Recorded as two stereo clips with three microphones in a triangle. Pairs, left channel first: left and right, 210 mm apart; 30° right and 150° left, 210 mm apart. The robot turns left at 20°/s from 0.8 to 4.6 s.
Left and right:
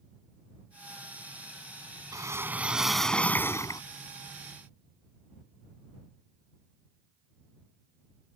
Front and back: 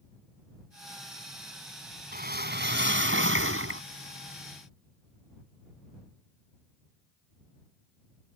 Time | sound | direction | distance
2.1 | a whoosh | 165° right | ?